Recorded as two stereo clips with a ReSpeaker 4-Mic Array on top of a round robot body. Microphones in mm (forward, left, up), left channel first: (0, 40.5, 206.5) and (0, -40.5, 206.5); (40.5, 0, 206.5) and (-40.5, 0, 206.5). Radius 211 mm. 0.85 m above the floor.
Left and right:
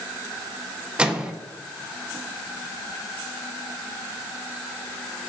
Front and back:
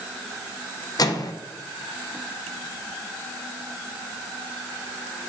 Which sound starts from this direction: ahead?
A microwave, at 1.0 s.